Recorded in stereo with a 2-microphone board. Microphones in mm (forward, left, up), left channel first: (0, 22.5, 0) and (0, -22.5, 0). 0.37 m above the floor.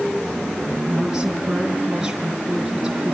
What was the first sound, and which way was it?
A woman speaking, 15° right (ahead or behind).